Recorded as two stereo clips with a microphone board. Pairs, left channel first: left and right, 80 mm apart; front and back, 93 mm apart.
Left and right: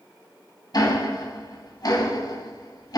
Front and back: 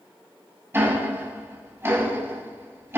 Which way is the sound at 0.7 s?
120° left.